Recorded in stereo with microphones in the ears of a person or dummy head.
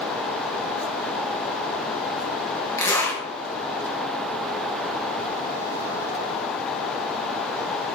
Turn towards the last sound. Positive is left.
turn(degrees=15)  # may be behind; listen again after turning